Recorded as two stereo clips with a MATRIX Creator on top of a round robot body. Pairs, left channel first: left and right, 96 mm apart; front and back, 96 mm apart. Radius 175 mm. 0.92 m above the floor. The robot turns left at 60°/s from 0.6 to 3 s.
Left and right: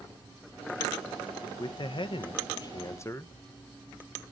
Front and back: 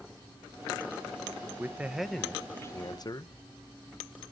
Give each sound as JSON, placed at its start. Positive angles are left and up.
{"t": 1.6, "sound": "a man speaking", "azimuth_deg": 120, "distance_m": 1.0}